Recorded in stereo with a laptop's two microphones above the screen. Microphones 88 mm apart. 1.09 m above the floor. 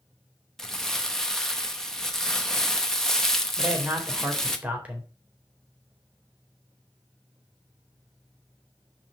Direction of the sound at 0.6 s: 5° left (ahead or behind).